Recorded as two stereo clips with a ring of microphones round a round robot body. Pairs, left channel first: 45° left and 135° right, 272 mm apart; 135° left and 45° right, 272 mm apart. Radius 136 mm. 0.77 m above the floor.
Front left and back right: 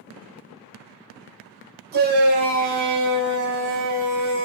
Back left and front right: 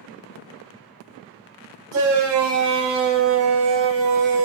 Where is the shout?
80° right, 4 m; by 4.5 s 90° right, 5 m.